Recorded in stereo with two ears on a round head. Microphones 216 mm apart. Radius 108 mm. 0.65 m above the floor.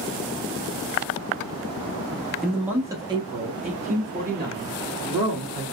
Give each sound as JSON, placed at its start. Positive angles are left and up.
{"t": 2.4, "sound": "a man speaking", "side_deg": 0, "distance_m": 0.7}